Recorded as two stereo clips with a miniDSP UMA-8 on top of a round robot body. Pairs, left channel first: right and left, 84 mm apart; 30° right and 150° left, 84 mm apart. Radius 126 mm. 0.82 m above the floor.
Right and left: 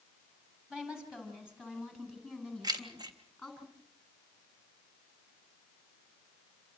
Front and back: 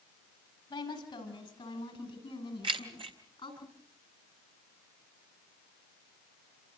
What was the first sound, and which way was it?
A woman speaking, 10° left.